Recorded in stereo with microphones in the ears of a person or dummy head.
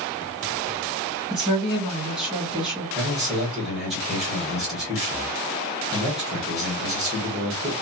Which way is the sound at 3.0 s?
5° right (ahead or behind).